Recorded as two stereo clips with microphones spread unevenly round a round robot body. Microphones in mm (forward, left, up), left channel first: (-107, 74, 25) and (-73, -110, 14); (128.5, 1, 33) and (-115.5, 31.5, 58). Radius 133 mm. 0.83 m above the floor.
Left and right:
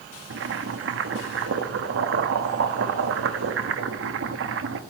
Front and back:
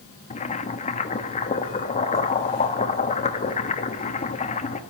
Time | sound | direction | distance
0.3 | boiling | 70° right | 1.0 m